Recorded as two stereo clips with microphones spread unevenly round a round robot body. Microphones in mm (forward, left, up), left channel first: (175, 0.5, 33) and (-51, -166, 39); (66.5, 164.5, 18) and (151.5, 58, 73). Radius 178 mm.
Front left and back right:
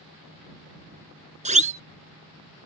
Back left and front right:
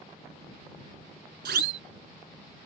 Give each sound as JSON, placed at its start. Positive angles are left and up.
{"t": 1.4, "sound": "a siren", "azimuth_deg": -80}